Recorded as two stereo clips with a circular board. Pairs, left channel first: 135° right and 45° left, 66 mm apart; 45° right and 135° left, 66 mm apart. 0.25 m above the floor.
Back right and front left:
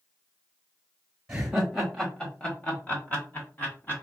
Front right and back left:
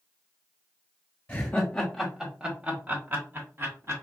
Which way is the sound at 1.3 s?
30° right.